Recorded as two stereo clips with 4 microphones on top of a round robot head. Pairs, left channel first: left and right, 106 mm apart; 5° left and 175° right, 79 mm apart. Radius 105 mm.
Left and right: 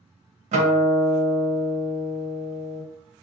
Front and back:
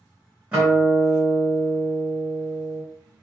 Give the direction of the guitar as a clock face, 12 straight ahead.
3 o'clock.